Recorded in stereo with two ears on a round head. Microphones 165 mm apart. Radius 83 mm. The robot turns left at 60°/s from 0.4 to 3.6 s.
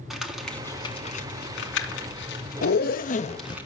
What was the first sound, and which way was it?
Crumpling, centre (ahead or behind).